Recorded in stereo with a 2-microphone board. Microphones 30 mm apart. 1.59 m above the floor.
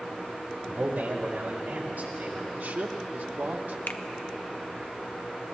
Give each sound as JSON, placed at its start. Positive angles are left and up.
{"t": 0.7, "sound": "a man speaking", "side_deg": -70, "distance_m": 2.0}
{"t": 2.5, "sound": "a man speaking", "side_deg": -75, "distance_m": 1.0}
{"t": 3.9, "sound": "a finger snap", "side_deg": 75, "distance_m": 0.5}